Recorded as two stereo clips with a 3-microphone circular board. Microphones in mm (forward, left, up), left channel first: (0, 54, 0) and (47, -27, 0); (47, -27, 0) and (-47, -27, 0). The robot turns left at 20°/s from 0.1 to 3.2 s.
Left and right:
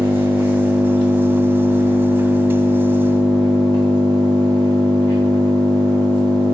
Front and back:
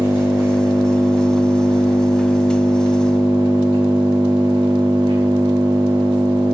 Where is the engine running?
120° right, 6.5 m; by 6.5 s 175° left, 6.5 m.